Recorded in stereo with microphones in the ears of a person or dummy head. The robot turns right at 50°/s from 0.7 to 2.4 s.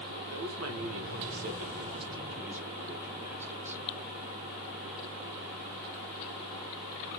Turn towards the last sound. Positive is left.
turn(degrees=-15)